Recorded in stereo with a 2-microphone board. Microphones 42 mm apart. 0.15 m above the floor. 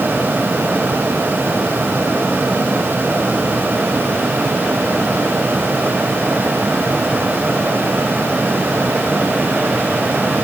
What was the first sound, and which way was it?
Only background noise.